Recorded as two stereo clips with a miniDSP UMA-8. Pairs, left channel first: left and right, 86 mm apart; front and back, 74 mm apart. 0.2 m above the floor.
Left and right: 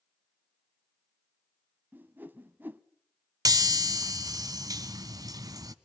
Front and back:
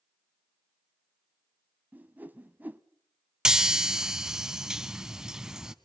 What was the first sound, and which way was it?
A whoosh, 140° right.